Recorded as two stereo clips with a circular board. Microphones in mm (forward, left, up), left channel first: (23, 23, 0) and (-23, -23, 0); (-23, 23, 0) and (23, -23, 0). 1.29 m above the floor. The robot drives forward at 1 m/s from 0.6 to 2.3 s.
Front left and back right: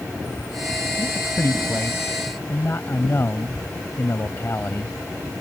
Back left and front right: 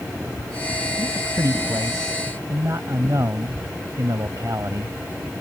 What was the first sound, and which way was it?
A man speaking, 5° right.